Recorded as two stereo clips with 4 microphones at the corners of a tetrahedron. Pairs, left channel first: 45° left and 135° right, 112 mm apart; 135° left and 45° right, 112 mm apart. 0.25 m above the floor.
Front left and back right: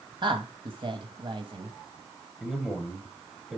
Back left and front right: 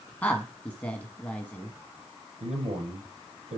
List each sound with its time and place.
0.2 s a woman speaking: 150° right, 1.4 m
2.4 s a man speaking: 50° right, 6.5 m